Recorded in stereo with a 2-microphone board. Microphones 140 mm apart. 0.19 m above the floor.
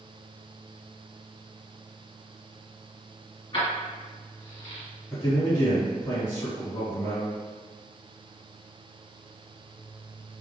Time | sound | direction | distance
3.5 | keys jangling | 40° left (ahead or behind) | 1.6 m
5.1 | a man speaking | 30° left (ahead or behind) | 1.7 m